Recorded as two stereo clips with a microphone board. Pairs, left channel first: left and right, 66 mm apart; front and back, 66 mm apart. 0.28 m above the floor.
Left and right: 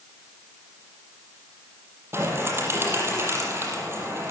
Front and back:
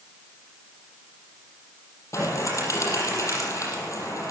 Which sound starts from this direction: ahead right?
A bird, at 2.1 s.